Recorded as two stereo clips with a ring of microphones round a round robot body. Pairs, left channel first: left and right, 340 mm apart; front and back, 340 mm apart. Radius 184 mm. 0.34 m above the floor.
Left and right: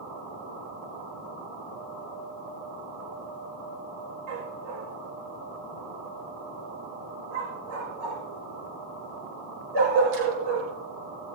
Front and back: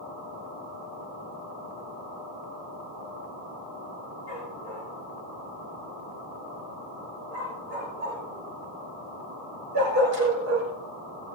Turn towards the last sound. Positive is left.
turn(degrees=-125)